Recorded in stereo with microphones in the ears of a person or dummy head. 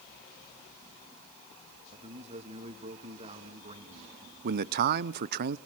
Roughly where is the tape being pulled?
I don't hear tape being pulled.